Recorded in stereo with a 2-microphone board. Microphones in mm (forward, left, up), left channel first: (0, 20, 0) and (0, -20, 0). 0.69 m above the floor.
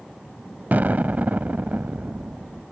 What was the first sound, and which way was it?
An explosion, 45° right (ahead or behind).